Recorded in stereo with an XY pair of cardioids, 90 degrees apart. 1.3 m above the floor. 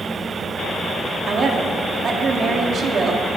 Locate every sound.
0.0 s a fan: 25° right, 2 m
1.3 s a woman speaking: 55° right, 2.5 m